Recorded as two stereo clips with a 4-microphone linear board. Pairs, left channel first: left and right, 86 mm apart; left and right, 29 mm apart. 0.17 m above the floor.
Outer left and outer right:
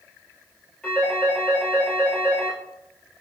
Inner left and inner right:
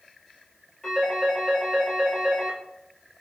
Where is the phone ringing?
15° left (ahead or behind), 2.0 m.